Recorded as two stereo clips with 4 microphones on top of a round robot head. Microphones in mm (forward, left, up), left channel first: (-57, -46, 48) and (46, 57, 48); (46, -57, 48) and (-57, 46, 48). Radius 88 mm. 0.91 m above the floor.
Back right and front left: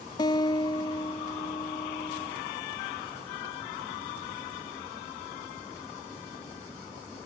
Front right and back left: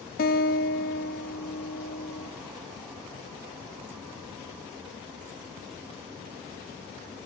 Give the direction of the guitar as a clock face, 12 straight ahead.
2 o'clock.